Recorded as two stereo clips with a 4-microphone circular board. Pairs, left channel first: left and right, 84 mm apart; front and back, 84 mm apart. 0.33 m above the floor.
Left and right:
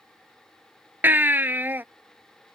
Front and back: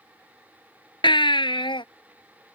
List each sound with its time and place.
1.0 s a baby crying: 20° right